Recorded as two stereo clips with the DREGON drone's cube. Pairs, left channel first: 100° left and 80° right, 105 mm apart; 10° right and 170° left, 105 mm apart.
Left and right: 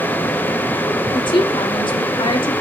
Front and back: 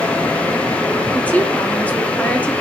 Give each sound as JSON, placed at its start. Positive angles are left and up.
{"t": 1.1, "sound": "a woman speaking", "azimuth_deg": 65, "distance_m": 2.5}